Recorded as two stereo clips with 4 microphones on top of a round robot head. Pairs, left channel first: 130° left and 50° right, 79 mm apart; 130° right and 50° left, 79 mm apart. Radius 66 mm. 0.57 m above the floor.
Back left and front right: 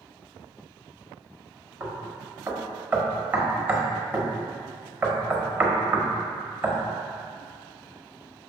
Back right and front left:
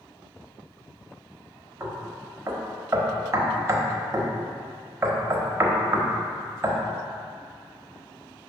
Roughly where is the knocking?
Ahead.